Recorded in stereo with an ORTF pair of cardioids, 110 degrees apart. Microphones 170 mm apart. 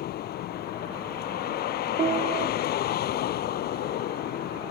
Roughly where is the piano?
Ahead right.